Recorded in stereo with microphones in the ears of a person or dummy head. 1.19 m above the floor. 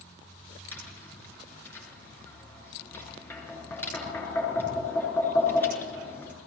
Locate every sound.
0.7 s tapping: 10° left (ahead or behind), 8.5 m